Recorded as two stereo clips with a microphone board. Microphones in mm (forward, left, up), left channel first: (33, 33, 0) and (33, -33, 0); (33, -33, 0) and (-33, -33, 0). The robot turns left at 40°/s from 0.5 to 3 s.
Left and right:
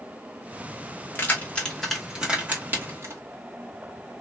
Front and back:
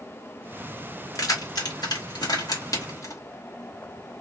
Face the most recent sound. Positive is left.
turn(degrees=-40)